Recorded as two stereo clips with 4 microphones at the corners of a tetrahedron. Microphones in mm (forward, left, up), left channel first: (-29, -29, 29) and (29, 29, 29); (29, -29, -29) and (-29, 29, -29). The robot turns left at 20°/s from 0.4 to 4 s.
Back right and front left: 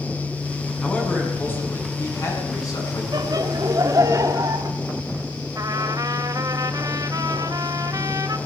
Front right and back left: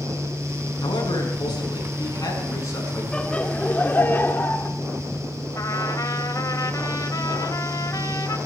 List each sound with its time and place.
0.8 s a man speaking: 60° right, 6 m; by 3.0 s 100° right, 6 m
3.1 s laughter: 30° left, 1.5 m; by 4.7 s 15° left, 1.5 m
5.5 s a trumpet: straight ahead, 1.0 m